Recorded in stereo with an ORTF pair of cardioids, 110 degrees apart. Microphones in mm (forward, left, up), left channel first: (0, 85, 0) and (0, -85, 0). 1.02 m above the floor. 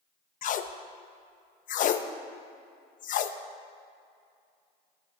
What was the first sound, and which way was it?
Tape being pulled, 50° left.